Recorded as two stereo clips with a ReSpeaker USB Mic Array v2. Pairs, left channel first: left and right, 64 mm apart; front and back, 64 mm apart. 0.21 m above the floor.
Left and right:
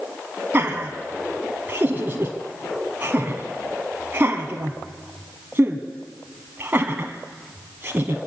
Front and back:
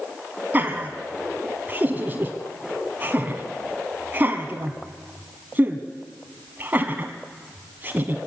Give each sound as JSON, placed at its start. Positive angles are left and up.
{"t": 0.5, "sound": "laughter", "azimuth_deg": -130, "distance_m": 1.3}